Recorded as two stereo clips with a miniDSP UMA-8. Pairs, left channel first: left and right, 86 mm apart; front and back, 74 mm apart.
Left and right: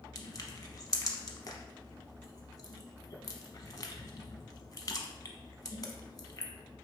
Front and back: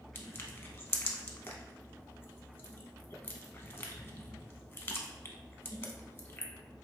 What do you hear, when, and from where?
0.1 s crushing: 50° left, 0.7 m